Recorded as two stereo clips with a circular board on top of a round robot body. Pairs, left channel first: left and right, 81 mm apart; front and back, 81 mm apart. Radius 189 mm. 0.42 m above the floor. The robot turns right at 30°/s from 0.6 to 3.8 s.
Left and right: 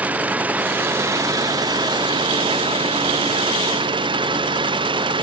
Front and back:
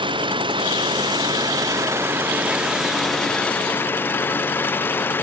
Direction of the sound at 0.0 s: 165° right.